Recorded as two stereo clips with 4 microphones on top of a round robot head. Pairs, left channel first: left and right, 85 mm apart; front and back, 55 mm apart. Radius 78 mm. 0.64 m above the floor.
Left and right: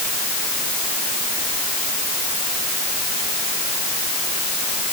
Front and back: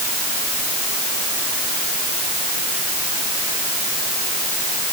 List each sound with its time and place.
Only background noise.